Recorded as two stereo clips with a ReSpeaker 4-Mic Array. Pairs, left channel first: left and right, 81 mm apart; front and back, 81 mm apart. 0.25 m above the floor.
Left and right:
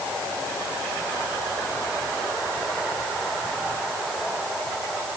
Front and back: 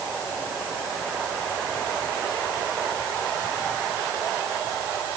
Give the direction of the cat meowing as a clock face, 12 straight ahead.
I don't hear a cat meowing.